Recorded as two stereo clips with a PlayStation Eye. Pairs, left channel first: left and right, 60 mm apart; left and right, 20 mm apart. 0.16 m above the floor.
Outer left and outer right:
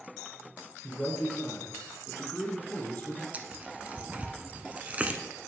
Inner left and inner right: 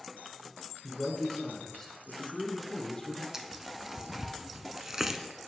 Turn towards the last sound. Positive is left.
turn(degrees=-25)  # may be behind; listen again after turning